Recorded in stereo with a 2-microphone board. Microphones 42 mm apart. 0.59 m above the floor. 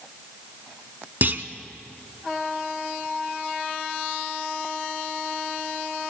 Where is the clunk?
50° right (ahead or behind), 0.8 m.